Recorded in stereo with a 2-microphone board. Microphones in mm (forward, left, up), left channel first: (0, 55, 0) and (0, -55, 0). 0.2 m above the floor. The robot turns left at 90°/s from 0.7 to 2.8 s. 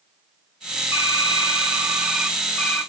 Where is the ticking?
I don't hear ticking.